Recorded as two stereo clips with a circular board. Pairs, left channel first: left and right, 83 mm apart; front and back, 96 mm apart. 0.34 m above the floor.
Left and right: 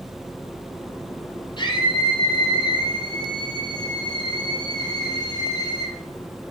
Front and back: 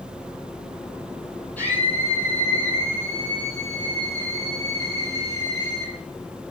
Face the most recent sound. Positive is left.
turn(degrees=55)